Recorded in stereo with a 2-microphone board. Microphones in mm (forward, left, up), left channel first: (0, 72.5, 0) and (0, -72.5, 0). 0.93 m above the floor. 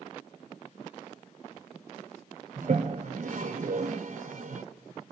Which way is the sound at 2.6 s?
60° right (ahead or behind).